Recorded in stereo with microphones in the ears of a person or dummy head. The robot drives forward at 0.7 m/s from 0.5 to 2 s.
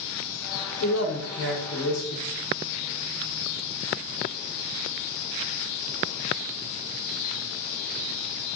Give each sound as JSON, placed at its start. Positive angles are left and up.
{"t": 0.8, "sound": "a man speaking", "side_deg": 80, "distance_m": 1.0}